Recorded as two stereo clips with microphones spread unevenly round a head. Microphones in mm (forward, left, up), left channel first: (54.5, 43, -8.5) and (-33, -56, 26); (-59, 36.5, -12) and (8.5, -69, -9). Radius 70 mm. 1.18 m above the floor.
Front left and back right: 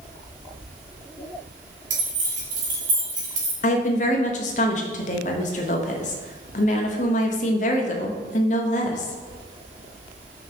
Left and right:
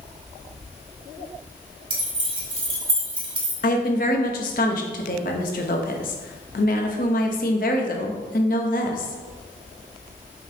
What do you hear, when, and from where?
1.9 s keys jangling: 105° right, 3 m
3.6 s a woman speaking: 90° left, 1.0 m